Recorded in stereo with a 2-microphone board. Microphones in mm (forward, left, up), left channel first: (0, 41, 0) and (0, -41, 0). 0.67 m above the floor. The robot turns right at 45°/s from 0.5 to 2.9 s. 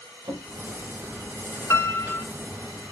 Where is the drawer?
75° right (ahead or behind), 2.0 m.